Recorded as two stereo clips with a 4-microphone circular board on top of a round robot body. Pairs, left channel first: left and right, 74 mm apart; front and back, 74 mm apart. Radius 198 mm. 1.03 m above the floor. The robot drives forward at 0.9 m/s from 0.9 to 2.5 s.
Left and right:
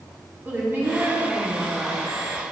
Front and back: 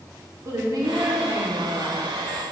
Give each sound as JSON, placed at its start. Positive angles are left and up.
{"t": 0.5, "sound": "a woman speaking", "azimuth_deg": -150, "distance_m": 3.5}